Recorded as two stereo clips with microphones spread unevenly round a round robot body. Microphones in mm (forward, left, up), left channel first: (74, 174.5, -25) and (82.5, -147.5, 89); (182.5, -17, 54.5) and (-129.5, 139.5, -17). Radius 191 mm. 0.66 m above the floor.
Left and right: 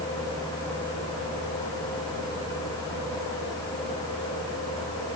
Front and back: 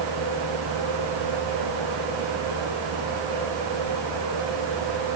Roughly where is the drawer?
No drawer in this recording.